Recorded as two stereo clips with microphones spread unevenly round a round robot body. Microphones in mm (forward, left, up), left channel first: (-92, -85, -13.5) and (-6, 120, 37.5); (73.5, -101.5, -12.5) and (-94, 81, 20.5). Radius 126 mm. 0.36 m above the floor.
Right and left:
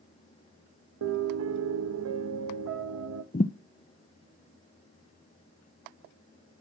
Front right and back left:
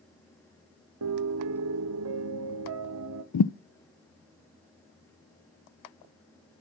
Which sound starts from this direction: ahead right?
A thud, at 3.3 s.